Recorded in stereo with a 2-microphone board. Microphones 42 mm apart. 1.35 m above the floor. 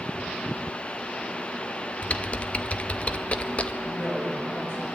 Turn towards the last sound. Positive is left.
turn(degrees=65)  # may be behind; listen again after turning